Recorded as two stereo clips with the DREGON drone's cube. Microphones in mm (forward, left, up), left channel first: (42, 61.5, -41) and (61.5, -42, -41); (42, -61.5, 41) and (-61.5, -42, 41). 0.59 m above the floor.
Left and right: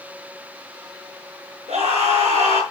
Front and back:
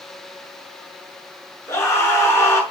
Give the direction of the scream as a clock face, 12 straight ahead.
3 o'clock.